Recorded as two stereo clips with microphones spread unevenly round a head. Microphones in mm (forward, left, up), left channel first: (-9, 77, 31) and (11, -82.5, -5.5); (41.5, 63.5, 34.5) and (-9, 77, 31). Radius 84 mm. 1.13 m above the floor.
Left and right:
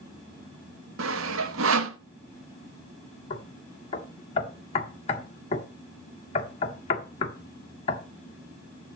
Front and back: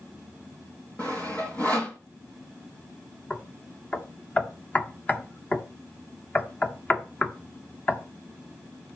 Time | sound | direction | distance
1.0 | sawing | 95° right | 0.9 m
3.3 | knocking | 45° left | 1.5 m